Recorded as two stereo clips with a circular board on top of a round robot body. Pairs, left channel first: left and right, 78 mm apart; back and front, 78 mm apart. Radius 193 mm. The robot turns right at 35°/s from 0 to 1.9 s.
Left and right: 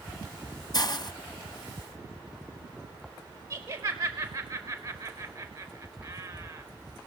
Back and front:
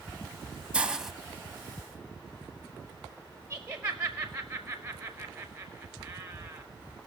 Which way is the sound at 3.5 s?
65° right.